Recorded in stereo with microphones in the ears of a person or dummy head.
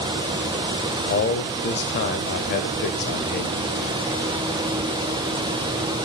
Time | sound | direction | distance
1.1 | a man speaking | 50° left (ahead or behind) | 0.7 m